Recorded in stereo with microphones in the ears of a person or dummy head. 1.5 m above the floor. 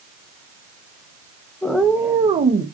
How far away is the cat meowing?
About 0.8 m.